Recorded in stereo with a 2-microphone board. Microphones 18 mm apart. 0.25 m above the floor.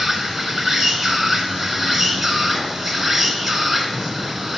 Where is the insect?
5° right (ahead or behind), 1.3 m.